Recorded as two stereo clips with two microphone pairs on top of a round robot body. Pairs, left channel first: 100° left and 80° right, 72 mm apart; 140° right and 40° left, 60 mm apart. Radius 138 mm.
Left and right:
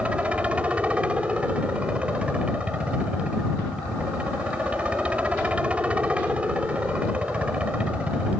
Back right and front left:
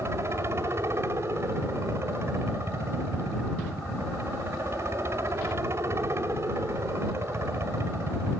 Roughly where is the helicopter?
Ahead.